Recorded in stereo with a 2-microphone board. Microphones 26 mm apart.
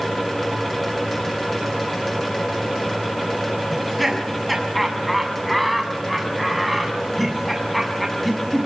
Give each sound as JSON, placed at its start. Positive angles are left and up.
{"t": 3.7, "sound": "laughter", "side_deg": 5, "distance_m": 6.5}